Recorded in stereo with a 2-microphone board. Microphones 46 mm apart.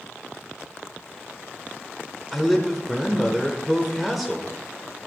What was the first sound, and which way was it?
A man speaking, centre (ahead or behind).